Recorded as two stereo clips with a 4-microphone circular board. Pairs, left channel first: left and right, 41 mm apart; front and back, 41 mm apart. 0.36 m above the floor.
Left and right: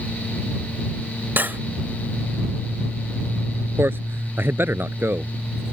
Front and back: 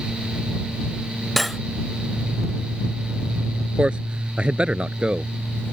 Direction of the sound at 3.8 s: 115° right.